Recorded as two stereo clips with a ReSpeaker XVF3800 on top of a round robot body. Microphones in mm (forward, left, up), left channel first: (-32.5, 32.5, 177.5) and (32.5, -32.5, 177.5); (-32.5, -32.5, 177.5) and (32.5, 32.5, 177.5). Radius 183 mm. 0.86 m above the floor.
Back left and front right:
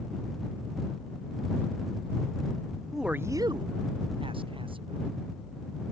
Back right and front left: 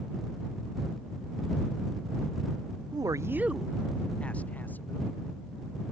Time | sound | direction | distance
2.9 | a man speaking | 45° left | ?